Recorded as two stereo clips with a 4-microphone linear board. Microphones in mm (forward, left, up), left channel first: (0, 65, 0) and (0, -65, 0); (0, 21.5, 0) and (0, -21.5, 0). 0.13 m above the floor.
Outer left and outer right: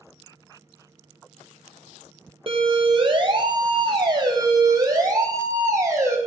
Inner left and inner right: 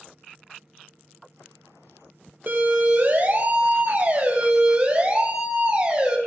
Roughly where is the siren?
Right.